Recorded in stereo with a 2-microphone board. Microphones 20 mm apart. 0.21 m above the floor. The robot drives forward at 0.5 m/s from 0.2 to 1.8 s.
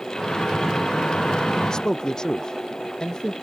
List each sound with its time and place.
1.6 s a man speaking: 35° left (ahead or behind)